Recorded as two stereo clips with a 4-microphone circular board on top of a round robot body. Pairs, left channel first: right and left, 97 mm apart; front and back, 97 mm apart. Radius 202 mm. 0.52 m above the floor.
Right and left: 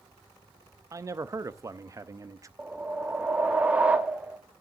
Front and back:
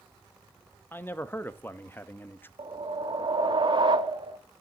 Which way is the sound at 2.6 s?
165° left.